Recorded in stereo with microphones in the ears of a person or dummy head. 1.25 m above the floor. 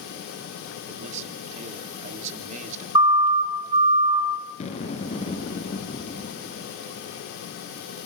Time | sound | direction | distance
0.9 | a man speaking | 40° right (ahead or behind) | 3.5 m
3.0 | a siren | 30° right (ahead or behind) | 3 m
4.6 | an explosion | 40° left (ahead or behind) | 4 m